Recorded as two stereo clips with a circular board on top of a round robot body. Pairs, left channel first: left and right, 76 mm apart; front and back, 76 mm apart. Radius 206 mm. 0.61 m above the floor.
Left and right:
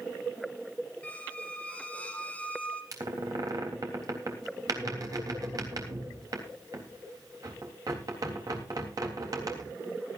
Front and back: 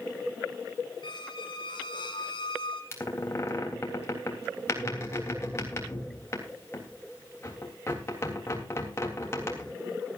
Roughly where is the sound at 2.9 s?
Ahead right.